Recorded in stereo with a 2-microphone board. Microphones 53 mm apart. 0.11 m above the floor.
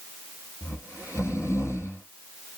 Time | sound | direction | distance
0.6 | snoring | 60° left (ahead or behind) | 1.5 m